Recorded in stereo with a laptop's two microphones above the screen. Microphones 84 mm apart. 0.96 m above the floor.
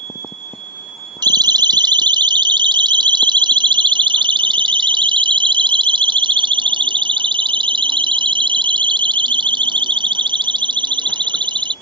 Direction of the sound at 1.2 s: 60° right (ahead or behind).